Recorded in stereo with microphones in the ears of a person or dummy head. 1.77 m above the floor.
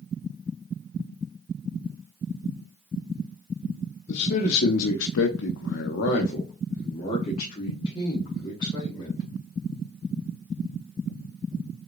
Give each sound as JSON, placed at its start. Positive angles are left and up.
{"t": 4.1, "sound": "a man speaking", "side_deg": 45, "distance_m": 1.0}